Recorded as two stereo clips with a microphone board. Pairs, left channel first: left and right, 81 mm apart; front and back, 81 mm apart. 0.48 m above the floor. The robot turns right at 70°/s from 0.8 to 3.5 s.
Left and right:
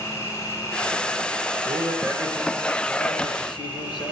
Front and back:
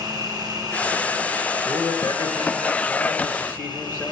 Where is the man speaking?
70° right, 7 m; by 4.1 s 60° left, 7 m.